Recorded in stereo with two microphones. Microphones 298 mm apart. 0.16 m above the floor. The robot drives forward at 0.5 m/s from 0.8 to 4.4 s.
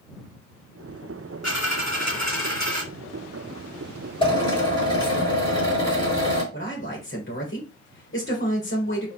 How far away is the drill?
About 3.5 m.